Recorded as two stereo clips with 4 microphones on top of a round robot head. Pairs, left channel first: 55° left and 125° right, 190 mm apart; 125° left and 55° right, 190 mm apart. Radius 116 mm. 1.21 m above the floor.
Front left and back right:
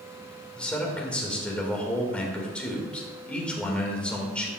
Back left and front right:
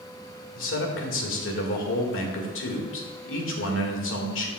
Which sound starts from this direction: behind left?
A man speaking, at 0.6 s.